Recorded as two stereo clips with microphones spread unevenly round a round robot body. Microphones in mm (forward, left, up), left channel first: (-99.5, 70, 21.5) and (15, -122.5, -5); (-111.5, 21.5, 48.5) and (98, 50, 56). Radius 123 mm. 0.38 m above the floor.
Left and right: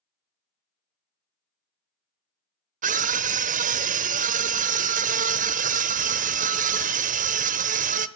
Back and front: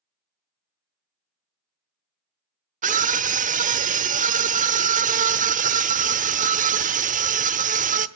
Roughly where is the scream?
Ahead right.